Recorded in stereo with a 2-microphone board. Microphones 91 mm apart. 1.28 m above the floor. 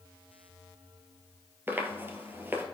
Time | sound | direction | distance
1.7 | footsteps | 25° right (ahead or behind) | 1.5 m